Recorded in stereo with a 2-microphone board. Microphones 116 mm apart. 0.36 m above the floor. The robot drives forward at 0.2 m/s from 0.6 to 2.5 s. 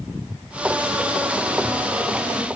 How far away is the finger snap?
I don't hear a finger snap.